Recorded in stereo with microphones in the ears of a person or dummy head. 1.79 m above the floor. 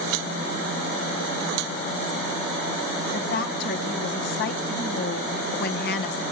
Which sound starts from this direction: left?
A woman speaking, at 3.1 s.